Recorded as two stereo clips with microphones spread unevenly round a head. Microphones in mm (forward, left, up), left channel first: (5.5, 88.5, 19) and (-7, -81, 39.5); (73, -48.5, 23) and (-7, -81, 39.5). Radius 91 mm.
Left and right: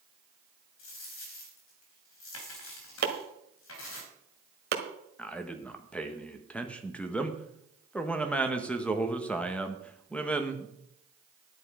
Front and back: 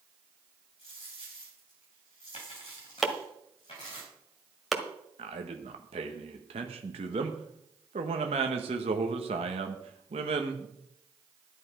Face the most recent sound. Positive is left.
turn(degrees=170)